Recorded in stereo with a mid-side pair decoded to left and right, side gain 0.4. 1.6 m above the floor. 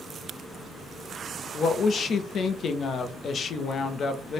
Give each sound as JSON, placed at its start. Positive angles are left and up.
{"t": 1.5, "sound": "a woman speaking", "azimuth_deg": 60, "distance_m": 0.6}